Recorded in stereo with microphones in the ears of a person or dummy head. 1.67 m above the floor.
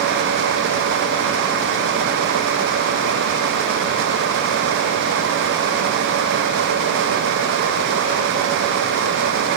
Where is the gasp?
I don't hear a gasp.